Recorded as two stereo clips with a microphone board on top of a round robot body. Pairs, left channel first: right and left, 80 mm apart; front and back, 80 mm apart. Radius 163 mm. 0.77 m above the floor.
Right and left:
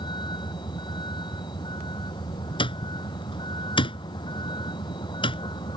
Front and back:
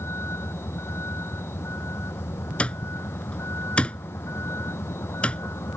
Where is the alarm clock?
80° right.